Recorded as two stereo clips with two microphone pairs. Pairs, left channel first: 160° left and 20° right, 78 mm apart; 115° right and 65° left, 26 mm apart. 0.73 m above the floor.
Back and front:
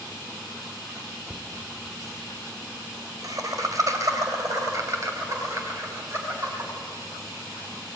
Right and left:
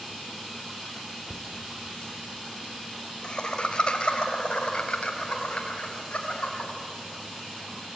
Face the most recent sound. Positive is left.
turn(degrees=-70)